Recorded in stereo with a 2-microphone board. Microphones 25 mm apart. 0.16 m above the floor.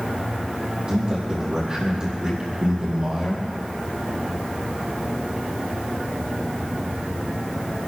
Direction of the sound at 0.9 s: 35° right (ahead or behind).